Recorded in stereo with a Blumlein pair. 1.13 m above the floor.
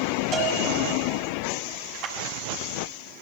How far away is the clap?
About 6.5 m.